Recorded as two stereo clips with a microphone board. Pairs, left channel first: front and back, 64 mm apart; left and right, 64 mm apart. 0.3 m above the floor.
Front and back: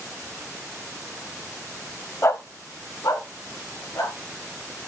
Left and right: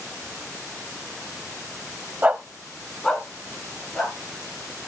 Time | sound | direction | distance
2.2 | a dog barking | 35° right | 0.5 m